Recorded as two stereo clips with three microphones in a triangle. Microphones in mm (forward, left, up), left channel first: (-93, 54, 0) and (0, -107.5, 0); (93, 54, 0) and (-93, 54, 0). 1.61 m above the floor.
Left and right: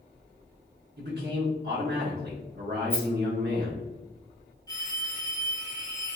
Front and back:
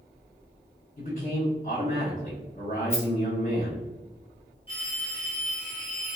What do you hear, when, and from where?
1.0 s a man speaking: 40° right, 0.8 m
2.9 s a rattle: 55° left, 0.9 m
4.7 s a phone ringing: 55° left, 1.0 m